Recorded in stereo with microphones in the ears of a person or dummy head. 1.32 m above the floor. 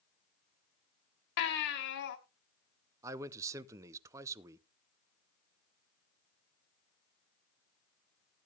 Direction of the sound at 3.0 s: 15° right (ahead or behind).